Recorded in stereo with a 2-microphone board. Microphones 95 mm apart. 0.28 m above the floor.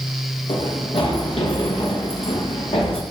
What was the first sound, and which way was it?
Running footsteps, 85° left.